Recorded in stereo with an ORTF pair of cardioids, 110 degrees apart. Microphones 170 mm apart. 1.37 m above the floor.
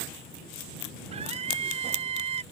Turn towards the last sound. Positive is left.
turn(degrees=-40)